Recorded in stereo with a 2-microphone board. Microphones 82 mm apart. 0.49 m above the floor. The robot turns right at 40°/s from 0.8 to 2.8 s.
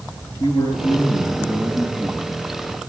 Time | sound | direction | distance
0.4 | a man speaking | 120° left | 5.5 m